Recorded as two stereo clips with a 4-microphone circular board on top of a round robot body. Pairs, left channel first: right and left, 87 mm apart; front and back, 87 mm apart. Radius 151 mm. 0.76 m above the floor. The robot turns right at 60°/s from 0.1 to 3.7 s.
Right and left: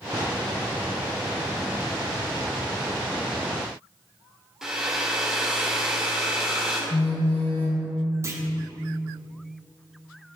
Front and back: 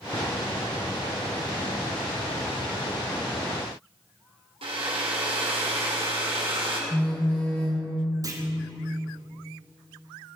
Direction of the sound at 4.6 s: 175° left.